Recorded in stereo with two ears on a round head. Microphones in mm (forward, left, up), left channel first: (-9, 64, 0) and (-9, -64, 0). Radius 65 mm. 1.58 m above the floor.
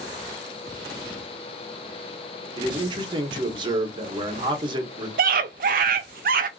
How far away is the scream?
About 0.5 m.